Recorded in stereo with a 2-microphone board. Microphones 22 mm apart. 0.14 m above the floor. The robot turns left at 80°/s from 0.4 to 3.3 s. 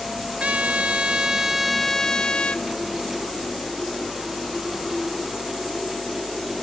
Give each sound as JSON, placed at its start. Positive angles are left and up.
{"t": 0.4, "sound": "a trumpet", "azimuth_deg": -75, "distance_m": 0.5}